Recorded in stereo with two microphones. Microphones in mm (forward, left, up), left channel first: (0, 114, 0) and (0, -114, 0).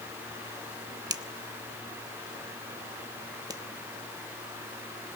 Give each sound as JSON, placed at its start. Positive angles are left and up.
{"t": 1.1, "sound": "a finger snap", "side_deg": -15, "distance_m": 0.9}